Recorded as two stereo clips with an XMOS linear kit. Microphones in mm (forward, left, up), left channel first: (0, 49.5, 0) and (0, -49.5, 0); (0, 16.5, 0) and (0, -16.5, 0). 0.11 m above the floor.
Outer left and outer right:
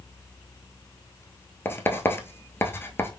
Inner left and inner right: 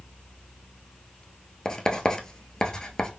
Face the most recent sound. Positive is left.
turn(degrees=25)  # may be behind; listen again after turning